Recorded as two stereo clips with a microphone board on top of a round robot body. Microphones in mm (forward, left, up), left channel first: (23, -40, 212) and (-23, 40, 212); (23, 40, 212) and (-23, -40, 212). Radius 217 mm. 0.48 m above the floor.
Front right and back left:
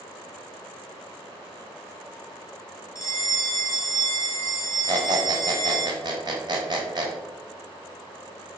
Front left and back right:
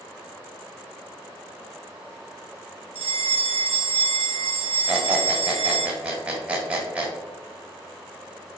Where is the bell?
120° right, 0.5 m.